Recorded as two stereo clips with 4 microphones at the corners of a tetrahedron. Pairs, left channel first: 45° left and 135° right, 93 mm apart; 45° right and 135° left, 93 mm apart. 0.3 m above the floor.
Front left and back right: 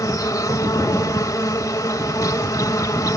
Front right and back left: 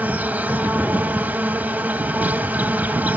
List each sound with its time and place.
0.0 s an insect: 70° left, 0.9 m